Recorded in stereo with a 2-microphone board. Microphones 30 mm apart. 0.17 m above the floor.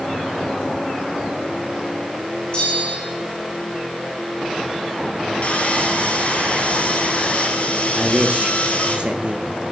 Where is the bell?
40° left (ahead or behind), 7 m.